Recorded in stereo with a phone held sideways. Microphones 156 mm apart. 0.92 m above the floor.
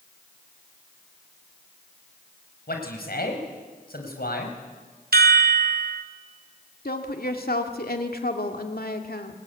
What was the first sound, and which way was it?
A man speaking, 85° left.